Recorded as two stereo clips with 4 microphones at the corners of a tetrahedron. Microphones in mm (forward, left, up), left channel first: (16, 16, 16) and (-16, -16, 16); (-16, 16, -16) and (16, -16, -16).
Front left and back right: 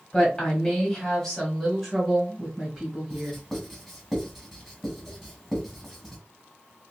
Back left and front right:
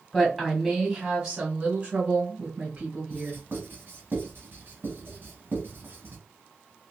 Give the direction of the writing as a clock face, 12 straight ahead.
1 o'clock.